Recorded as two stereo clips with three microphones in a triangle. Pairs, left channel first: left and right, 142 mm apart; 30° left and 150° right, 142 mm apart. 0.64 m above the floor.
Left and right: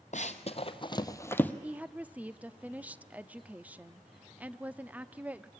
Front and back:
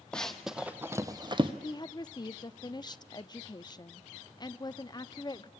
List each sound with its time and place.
0.1 s running footsteps: 115° left, 1.2 m; by 1.5 s 170° left, 1.1 m
1.6 s a woman speaking: 15° right, 0.7 m